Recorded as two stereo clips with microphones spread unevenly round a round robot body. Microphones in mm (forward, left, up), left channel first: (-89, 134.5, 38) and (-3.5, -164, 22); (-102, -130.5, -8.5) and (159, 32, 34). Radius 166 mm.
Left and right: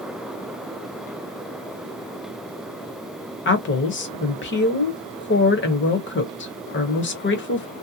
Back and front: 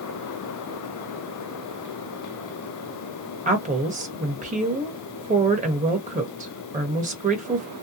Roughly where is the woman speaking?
Left.